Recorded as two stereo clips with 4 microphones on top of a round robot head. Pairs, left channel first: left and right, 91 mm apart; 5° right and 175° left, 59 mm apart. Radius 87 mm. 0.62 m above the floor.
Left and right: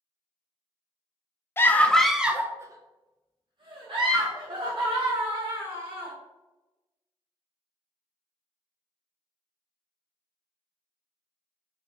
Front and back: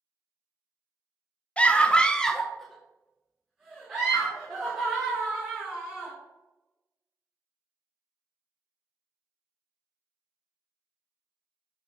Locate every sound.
1.6 s a scream: 50° left, 0.6 m; by 6.1 s 105° right, 2 m